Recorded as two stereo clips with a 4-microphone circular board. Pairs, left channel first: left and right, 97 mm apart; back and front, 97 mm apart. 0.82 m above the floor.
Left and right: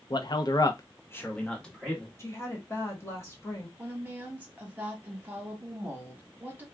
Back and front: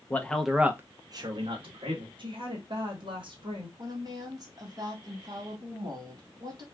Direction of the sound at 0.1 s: 115° left.